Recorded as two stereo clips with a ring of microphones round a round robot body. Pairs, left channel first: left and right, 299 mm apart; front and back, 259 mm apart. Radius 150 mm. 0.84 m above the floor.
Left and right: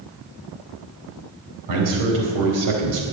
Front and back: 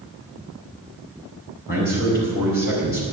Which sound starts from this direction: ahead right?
A man speaking, at 1.7 s.